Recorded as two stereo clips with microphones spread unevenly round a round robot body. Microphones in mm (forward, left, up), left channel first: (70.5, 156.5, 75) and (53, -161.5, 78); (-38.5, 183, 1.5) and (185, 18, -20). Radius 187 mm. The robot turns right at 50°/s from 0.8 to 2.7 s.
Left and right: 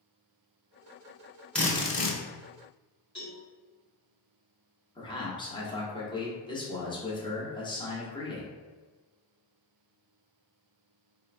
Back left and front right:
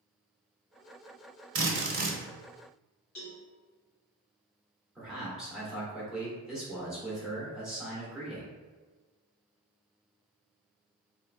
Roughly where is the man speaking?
Ahead left.